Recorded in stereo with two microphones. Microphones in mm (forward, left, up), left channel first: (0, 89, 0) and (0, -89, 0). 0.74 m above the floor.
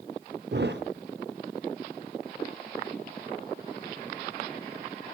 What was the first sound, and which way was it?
A thud, 75° right (ahead or behind).